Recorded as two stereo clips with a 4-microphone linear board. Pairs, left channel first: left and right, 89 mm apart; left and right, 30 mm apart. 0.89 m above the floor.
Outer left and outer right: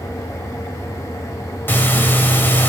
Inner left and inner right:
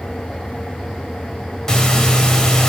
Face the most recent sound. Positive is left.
turn(degrees=20)  # may be behind; listen again after turning